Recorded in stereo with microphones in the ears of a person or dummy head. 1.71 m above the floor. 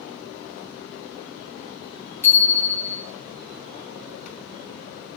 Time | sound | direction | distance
2.2 | a bicycle bell | 5° left (ahead or behind) | 3 m